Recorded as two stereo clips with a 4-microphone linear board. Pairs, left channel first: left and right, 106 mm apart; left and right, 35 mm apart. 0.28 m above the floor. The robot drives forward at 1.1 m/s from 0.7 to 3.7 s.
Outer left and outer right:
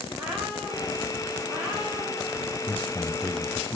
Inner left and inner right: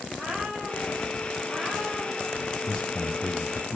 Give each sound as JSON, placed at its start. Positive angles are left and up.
{"t": 0.1, "sound": "a cat meowing", "side_deg": -5, "distance_m": 7.5}
{"t": 2.7, "sound": "a man speaking", "side_deg": 20, "distance_m": 0.9}